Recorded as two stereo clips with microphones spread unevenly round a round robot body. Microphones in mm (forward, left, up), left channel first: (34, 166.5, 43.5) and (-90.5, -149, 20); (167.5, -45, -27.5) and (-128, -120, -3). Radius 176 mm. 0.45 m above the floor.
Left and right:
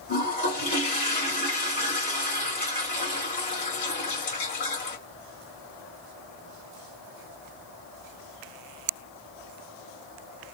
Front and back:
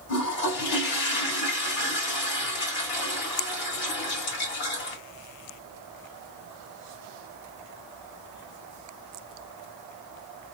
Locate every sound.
0.1 s a toilet flushing: 5° left, 2.5 m